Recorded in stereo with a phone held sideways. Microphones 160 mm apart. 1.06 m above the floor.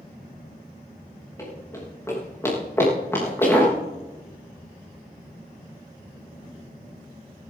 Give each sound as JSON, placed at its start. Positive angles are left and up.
{"t": 1.4, "sound": "running footsteps", "side_deg": 20, "distance_m": 9.0}